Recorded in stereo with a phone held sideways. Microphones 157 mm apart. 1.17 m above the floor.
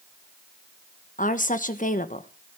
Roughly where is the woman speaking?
Left.